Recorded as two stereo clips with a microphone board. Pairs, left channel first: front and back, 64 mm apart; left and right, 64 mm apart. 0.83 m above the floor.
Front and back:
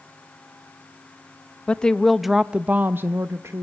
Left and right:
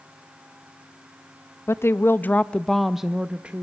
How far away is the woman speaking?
About 0.7 m.